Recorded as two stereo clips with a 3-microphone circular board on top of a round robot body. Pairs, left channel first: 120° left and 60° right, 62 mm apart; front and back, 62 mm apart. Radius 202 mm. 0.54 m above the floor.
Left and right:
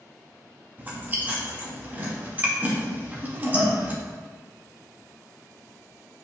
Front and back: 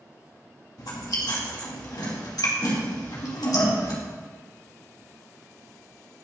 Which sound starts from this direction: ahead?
Chewing, at 0.8 s.